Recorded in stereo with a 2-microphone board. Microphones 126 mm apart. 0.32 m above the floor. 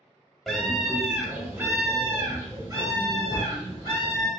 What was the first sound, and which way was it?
A scream, 5° left (ahead or behind).